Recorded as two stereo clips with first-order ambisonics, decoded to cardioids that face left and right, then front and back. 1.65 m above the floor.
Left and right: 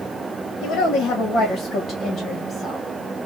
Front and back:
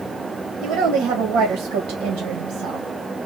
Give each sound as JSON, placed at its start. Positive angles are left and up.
{"t": 0.6, "sound": "a woman speaking", "azimuth_deg": 140, "distance_m": 1.3}